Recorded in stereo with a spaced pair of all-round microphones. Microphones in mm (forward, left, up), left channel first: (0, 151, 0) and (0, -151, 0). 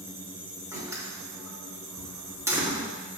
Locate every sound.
0.7 s a door slam: 10° right (ahead or behind), 2.5 m